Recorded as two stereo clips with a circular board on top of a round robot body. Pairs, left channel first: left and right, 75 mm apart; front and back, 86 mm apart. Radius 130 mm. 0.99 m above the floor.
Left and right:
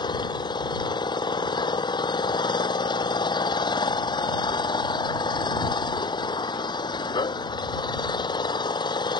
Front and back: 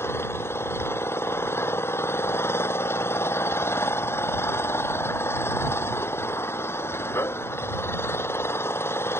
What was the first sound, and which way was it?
An engine running, 65° left.